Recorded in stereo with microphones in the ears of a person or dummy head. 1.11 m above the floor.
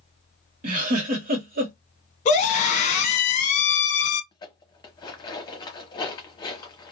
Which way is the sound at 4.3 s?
20° left (ahead or behind).